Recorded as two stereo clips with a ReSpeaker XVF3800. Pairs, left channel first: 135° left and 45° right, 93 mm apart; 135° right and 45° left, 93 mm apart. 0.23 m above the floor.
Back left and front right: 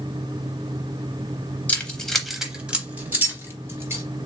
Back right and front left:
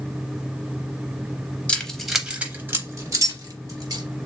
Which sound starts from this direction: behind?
Keys jangling, at 1.7 s.